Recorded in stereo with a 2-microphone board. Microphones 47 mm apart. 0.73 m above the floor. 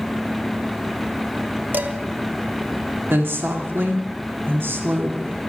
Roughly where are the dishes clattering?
Right.